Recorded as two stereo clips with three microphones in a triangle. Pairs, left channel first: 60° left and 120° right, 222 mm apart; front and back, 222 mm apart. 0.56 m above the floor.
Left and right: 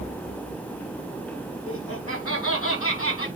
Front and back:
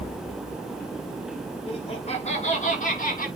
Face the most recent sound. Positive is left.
turn(degrees=50)